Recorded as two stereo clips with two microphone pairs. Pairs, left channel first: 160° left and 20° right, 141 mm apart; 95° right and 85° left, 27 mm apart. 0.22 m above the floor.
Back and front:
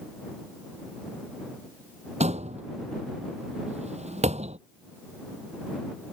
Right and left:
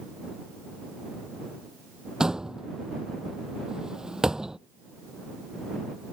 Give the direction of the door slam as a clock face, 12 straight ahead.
11 o'clock.